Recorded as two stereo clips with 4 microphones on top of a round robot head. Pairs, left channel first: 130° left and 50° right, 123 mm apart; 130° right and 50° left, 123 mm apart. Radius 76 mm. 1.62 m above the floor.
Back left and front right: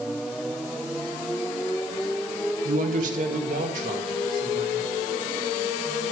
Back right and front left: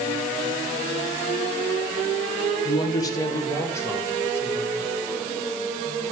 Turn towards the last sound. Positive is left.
turn(degrees=-55)